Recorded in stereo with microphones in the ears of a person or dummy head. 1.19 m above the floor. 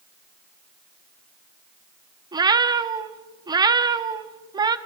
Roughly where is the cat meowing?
Right.